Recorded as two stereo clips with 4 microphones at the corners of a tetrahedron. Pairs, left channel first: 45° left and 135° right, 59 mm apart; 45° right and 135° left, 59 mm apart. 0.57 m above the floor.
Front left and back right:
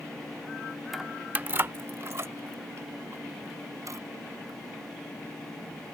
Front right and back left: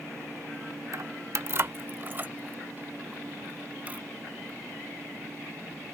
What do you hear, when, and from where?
0.9 s keys jangling: 135° left; by 4.6 s 160° right